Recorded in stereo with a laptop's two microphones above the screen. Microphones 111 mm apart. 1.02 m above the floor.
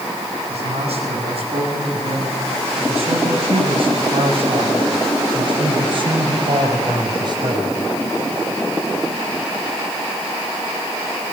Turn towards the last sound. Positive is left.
turn(degrees=-40)  # may be behind; listen again after turning